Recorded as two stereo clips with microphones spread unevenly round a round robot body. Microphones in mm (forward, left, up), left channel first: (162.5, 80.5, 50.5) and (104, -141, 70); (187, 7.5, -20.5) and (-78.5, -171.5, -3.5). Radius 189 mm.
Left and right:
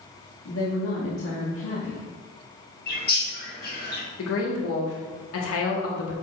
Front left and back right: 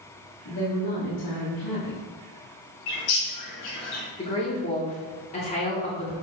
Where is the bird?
25° left, 2 m.